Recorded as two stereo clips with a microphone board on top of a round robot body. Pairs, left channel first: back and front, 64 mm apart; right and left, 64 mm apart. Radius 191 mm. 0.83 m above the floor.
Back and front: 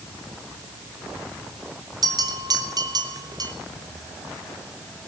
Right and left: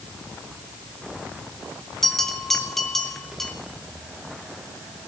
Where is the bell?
5° right, 3 m.